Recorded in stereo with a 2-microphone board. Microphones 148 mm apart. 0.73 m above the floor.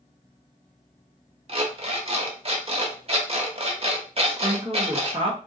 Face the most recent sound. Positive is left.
turn(degrees=-30)  # may be behind; listen again after turning